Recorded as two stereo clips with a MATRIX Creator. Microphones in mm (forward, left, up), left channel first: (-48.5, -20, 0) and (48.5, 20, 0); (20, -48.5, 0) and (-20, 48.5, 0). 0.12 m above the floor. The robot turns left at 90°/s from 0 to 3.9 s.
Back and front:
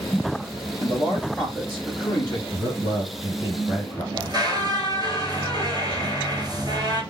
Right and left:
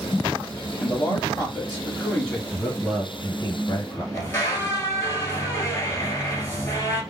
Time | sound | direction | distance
0.8 | a man speaking | 20° right | 1.8 m
2.5 | a man speaking | 55° left | 1.4 m
4.1 | a squeak | 10° right | 1.1 m